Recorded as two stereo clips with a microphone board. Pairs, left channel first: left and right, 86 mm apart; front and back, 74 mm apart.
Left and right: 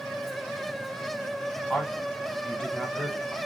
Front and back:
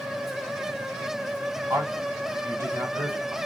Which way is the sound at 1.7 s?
170° left.